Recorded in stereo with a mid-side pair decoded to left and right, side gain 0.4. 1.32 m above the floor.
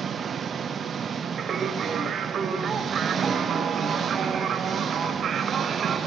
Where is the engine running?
50° right, 1.4 m.